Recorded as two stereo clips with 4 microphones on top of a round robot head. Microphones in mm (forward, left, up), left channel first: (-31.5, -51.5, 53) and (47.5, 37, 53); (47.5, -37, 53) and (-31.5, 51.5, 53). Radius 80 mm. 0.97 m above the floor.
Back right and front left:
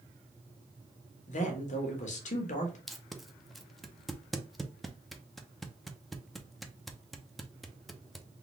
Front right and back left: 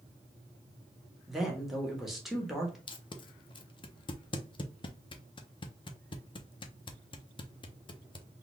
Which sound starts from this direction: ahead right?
Tape being pulled, at 2.9 s.